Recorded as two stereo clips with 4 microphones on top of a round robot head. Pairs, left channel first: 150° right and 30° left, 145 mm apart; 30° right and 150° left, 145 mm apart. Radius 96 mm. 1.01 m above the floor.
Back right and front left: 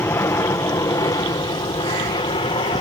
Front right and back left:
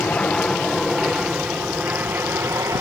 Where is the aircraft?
105° right; by 2.8 s 155° right.